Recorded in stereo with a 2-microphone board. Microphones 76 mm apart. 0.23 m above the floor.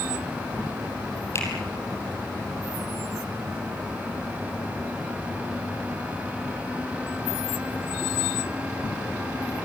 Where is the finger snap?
40° left (ahead or behind), 6 m.